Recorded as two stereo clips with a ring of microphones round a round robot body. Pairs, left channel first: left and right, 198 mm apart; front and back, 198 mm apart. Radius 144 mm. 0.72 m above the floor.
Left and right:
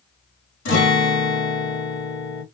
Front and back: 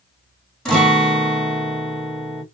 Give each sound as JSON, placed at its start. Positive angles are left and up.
{"t": 0.7, "sound": "a guitar", "azimuth_deg": 85, "distance_m": 1.7}